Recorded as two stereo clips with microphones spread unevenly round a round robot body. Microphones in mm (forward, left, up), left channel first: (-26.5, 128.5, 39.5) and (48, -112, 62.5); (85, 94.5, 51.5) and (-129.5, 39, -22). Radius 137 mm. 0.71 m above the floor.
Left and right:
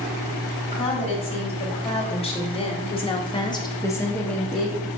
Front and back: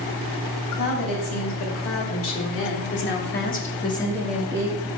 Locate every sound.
0.7 s a woman speaking: 40° left, 1.9 m; by 4.9 s 165° right, 0.8 m